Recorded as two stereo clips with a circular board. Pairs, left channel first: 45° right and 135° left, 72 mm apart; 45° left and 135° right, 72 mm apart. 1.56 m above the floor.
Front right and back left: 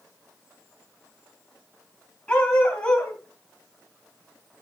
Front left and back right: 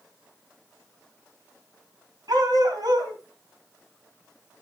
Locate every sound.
2.3 s a dog barking: 115° right, 4.5 m